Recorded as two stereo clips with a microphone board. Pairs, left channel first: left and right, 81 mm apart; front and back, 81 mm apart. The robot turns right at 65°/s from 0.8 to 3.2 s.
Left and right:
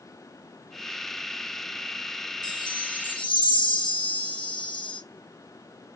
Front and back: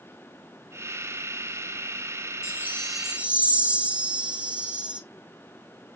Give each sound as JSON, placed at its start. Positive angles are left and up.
{"t": 2.4, "sound": "a chime", "azimuth_deg": 55, "distance_m": 2.5}